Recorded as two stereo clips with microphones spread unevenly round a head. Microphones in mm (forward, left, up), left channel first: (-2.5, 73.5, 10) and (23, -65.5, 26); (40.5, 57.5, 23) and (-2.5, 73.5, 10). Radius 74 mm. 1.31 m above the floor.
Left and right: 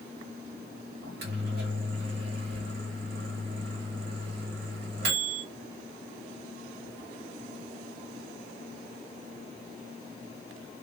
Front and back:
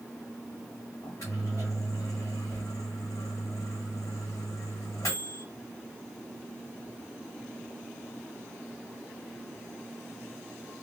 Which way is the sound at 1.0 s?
75° right.